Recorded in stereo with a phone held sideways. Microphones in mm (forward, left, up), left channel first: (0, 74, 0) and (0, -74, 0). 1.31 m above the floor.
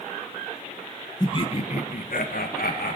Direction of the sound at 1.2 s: 25° left (ahead or behind).